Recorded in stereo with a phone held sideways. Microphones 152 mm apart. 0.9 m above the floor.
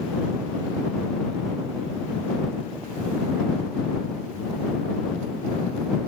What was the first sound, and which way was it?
Only background noise.